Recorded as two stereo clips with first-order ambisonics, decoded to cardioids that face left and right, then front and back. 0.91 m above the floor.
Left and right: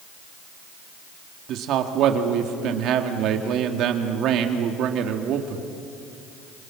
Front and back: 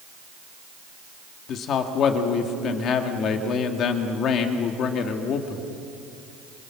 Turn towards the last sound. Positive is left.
turn(degrees=-50)